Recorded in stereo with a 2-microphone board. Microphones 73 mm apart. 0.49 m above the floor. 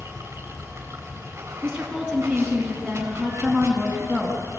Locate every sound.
0.0 s running water: 40° right (ahead or behind), 3.5 m
1.6 s a woman speaking: centre (ahead or behind), 3.5 m